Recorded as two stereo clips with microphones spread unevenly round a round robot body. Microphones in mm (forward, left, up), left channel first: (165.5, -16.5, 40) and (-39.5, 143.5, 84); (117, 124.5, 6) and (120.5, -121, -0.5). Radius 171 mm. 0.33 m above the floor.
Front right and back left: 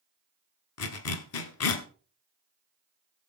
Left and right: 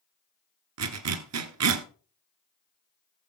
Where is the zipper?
75° right, 1.2 m.